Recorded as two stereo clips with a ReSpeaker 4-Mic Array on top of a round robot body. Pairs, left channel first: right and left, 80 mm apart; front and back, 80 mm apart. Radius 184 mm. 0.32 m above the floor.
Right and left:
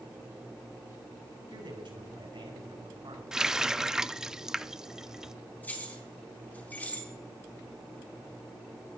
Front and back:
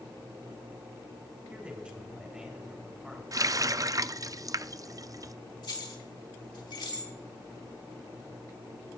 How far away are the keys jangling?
About 3.5 m.